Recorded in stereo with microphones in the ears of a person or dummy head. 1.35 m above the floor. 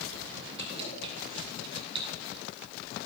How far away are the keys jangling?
About 8.5 m.